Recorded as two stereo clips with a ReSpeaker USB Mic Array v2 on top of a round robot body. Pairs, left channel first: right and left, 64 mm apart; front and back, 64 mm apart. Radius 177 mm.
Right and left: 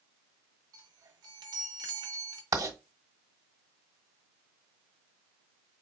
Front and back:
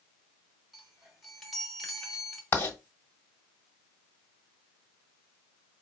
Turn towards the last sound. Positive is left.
turn(degrees=60)